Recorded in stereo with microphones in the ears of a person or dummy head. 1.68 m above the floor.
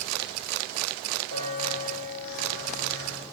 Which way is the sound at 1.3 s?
85° left.